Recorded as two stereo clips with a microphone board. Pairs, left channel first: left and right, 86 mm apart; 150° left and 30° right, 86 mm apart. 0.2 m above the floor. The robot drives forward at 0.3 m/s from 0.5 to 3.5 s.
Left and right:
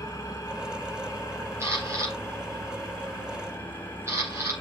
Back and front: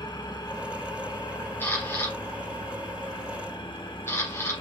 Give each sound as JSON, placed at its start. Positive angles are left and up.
{"t": 0.0, "sound": "an engine running", "azimuth_deg": 130, "distance_m": 1.7}
{"t": 1.6, "sound": "a camera shutter", "azimuth_deg": -145, "distance_m": 3.5}